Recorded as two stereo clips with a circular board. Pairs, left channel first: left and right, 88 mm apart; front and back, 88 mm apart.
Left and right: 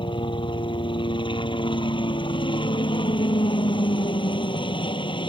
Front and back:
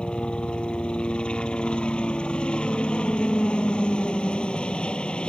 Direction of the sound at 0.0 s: 80° left.